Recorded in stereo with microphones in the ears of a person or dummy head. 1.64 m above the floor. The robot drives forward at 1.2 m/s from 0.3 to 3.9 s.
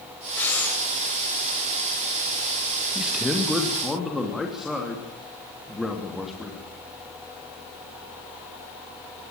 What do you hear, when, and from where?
0.4 s breathing: 15° left (ahead or behind), 2.5 m; by 0.8 s 10° left (ahead or behind), 3 m
3.0 s a man speaking: centre (ahead or behind), 1.6 m